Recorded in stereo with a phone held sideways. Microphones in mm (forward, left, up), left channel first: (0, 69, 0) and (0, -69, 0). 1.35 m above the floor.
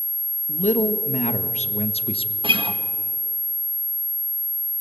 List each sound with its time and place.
0.5 s a man speaking: 75° left (ahead or behind), 1.8 m; by 2.3 s 40° left (ahead or behind), 1.2 m
2.4 s a guitar: 40° right (ahead or behind), 1.8 m